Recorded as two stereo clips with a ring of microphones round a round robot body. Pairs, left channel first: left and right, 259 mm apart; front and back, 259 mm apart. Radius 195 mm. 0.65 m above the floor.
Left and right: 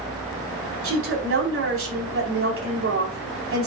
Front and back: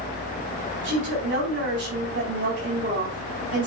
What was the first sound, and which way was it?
A woman speaking, 125° right.